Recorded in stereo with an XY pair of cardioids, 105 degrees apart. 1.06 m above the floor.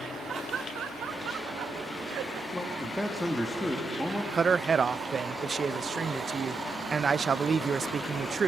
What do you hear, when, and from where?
0.3 s laughter: 50° right, 2.0 m; by 2.4 s 80° right, 4 m
2.5 s a man speaking: 10° left, 2.5 m
4.3 s a man speaking: 40° right, 0.5 m